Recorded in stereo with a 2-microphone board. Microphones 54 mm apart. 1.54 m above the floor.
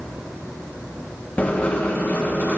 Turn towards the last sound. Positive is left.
turn(degrees=30)  # may be behind; listen again after turning